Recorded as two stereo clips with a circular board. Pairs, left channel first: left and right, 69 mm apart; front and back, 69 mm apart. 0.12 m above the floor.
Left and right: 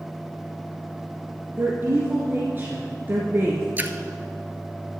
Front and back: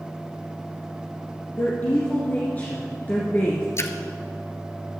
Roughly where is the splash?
Ahead right.